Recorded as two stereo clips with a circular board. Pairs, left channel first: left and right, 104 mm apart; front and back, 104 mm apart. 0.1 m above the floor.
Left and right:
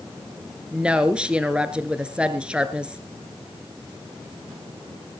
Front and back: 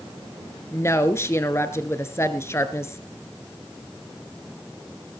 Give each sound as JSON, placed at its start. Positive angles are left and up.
{"t": 0.7, "sound": "a woman speaking", "azimuth_deg": -20, "distance_m": 1.2}